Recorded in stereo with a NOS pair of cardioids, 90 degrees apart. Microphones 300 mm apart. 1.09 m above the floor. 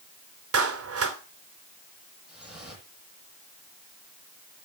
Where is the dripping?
Straight ahead, 9.5 m.